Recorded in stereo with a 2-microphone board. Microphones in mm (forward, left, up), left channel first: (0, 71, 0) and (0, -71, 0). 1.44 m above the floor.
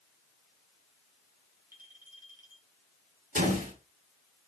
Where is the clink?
80° right, 9.5 m.